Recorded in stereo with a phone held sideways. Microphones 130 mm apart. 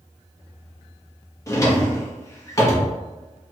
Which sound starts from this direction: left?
A drawer, at 1.5 s.